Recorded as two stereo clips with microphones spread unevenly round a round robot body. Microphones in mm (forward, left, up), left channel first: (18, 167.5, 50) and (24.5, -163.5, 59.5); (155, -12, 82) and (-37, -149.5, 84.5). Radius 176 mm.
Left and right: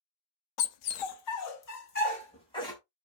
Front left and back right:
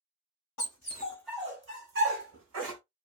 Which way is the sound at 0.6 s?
75° left.